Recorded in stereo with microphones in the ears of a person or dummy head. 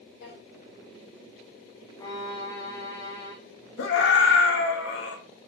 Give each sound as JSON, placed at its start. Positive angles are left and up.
{"t": 0.2, "sound": "a drawer", "side_deg": 65, "distance_m": 2.0}
{"t": 2.0, "sound": "a violin", "side_deg": 25, "distance_m": 0.9}
{"t": 3.8, "sound": "a scream", "side_deg": 75, "distance_m": 1.1}